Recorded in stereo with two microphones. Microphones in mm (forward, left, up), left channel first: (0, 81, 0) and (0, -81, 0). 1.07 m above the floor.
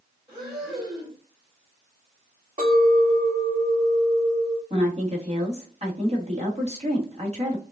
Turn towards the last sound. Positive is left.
turn(degrees=-35)  # may be behind; listen again after turning